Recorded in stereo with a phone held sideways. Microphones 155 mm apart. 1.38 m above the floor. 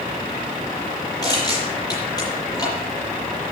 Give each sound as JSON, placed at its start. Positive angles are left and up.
{"t": 1.2, "sound": "crushing", "side_deg": 25, "distance_m": 7.5}